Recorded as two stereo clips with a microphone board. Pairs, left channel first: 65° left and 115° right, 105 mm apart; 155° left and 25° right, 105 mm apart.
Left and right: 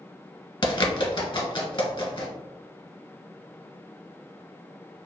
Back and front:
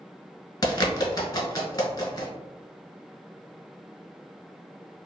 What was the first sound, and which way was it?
A bird, 105° left.